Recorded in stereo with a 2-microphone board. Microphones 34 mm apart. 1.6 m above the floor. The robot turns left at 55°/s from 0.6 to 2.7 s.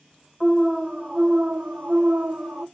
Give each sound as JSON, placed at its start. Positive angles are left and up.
{"t": 0.4, "sound": "an alarm", "azimuth_deg": -10, "distance_m": 1.2}